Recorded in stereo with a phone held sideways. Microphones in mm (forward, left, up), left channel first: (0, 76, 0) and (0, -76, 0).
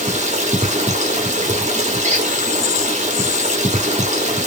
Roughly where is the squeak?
Right.